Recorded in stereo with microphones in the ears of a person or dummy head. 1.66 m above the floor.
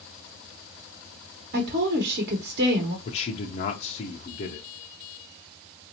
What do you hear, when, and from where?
1.5 s a woman speaking: 55° right (ahead or behind), 1.1 m
3.0 s a man speaking: 35° left (ahead or behind), 0.6 m